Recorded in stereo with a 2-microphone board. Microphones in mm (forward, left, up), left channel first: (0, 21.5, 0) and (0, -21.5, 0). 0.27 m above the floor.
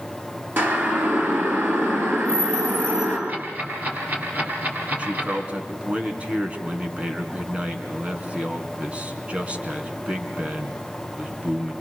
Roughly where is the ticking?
Right.